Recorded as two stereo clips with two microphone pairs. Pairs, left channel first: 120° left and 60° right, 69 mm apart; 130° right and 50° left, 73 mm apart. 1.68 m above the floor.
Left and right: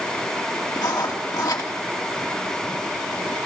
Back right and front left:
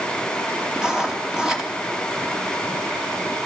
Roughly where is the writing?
Behind left.